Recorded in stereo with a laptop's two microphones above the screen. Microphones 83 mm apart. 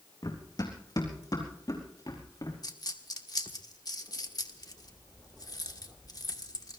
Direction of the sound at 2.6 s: 50° left (ahead or behind).